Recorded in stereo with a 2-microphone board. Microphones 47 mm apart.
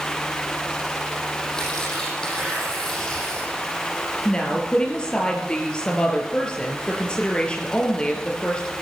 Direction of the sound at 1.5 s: 15° left (ahead or behind).